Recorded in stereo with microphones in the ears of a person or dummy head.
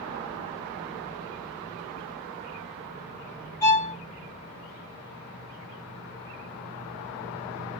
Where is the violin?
15° left (ahead or behind), 1.0 m.